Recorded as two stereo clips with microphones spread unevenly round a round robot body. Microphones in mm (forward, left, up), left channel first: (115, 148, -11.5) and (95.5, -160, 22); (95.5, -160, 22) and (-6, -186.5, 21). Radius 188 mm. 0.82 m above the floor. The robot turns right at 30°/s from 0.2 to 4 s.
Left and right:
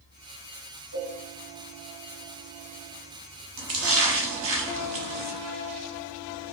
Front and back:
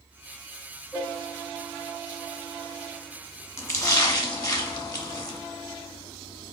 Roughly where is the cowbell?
Ahead right.